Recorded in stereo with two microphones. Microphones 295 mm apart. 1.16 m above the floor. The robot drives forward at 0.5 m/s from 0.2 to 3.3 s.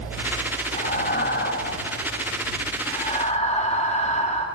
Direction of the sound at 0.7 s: 25° left (ahead or behind).